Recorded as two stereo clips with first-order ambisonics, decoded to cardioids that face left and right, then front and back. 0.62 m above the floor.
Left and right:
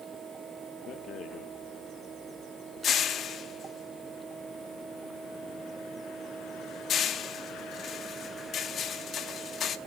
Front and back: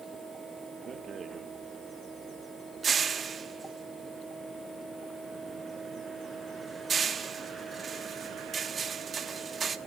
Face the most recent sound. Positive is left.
turn(degrees=125)